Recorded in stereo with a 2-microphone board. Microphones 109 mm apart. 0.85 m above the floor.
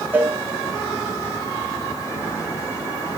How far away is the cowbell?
About 2.5 m.